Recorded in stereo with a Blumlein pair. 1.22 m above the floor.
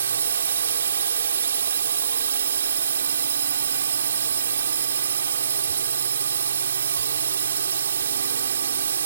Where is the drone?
65° right.